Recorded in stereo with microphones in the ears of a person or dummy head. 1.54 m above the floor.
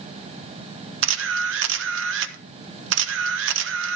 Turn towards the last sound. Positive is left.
turn(degrees=-80)